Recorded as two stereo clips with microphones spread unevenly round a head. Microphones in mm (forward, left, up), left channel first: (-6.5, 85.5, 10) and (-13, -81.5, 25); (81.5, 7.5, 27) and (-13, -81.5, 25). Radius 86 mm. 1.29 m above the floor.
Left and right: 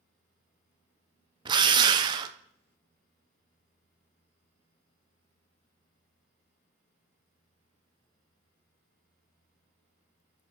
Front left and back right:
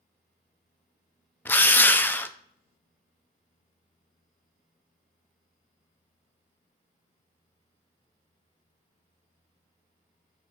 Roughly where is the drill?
Ahead right.